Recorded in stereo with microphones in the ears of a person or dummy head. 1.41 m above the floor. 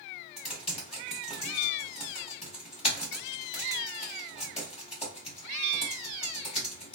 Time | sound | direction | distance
0.4 | typing on a keyboard | 30° left (ahead or behind) | 1.8 m